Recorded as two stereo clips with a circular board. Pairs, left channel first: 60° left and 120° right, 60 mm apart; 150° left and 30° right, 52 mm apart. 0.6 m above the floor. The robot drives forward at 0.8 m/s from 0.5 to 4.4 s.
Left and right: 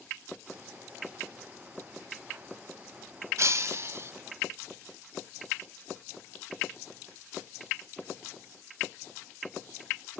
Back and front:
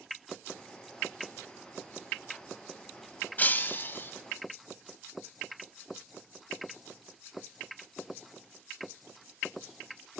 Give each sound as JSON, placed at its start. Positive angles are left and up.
{"t": 3.4, "sound": "breaking glass", "azimuth_deg": -155, "distance_m": 1.1}